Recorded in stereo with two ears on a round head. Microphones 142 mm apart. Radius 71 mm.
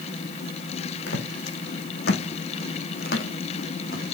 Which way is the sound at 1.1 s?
70° left (ahead or behind).